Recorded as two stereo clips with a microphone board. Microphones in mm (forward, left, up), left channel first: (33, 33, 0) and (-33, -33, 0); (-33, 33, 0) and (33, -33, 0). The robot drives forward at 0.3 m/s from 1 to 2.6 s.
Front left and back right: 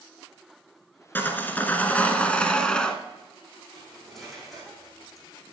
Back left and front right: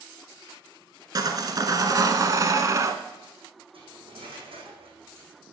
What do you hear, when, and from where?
1.1 s sawing: 20° right, 1.4 m; by 3.0 s 30° right, 1.1 m
3.7 s cutlery clinking: 45° right, 5 m